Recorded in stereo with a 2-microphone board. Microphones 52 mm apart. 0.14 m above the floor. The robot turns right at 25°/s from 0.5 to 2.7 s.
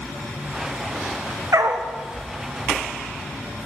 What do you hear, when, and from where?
1.5 s a dog barking: 85° right, 3 m; by 1.9 s 80° right, 3 m